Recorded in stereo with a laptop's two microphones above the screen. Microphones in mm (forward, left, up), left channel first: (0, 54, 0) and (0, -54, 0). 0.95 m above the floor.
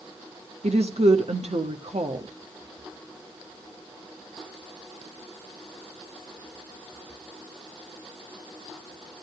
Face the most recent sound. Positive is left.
turn(degrees=-75)  # may be behind; listen again after turning